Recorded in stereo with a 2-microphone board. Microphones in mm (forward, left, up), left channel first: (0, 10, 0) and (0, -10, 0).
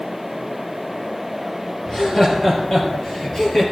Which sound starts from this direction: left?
Laughter, at 1.9 s.